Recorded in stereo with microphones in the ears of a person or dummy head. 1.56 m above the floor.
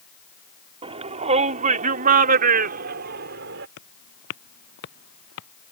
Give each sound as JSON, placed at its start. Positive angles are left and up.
{"t": 0.8, "sound": "a shout", "side_deg": -30}
{"t": 3.8, "sound": "footsteps", "side_deg": 65}